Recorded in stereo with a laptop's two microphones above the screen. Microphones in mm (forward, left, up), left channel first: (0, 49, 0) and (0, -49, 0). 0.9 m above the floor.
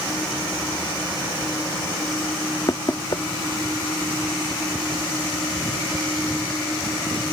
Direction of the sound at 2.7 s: 45° left (ahead or behind).